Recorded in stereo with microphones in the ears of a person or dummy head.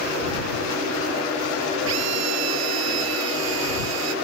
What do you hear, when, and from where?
1.9 s a drill: 75° right (ahead or behind)